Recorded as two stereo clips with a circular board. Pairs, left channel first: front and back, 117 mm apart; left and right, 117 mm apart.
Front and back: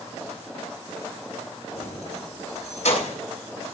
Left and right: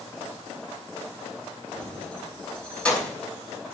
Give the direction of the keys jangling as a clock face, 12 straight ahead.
12 o'clock.